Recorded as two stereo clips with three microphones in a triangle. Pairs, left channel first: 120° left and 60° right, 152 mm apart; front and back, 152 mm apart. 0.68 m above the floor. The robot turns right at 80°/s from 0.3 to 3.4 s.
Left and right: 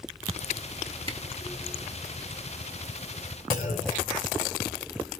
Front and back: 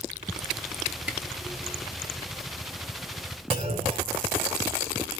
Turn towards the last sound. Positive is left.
turn(degrees=135)